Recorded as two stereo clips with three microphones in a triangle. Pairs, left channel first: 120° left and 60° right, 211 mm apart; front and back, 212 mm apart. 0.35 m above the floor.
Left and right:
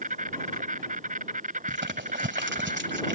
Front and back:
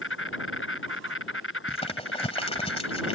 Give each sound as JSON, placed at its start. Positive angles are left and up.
{"t": 0.0, "sound": "an insect", "azimuth_deg": -10}
{"t": 1.7, "sound": "crumpling", "azimuth_deg": -55}